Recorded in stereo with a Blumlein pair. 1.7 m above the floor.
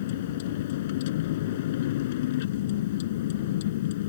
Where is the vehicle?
55° left.